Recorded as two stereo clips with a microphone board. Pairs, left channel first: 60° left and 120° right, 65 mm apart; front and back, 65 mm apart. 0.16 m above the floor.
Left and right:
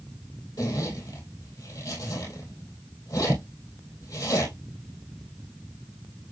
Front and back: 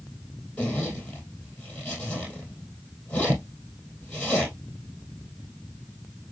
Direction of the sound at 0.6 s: 70° left.